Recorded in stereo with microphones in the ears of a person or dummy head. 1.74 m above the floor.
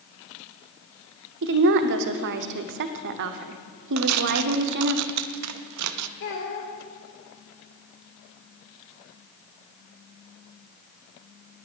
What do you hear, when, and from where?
1.4 s a woman speaking: 55° right (ahead or behind), 0.8 m
4.0 s tearing paper: 75° right (ahead or behind), 0.5 m
6.2 s a child speaking: 65° left (ahead or behind), 3 m